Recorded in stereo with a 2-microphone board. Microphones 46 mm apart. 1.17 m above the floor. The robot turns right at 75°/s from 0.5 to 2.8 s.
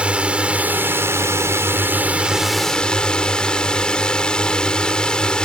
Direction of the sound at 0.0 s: 155° right.